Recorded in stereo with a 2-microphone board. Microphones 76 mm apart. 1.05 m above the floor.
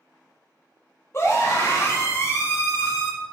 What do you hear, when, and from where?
1.1 s a scream: 35° left (ahead or behind), 1.5 m